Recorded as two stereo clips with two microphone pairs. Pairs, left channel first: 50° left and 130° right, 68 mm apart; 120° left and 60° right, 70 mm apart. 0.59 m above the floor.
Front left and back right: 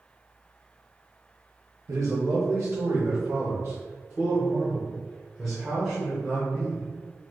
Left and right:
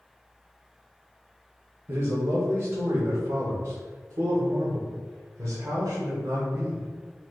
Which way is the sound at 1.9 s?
110° right.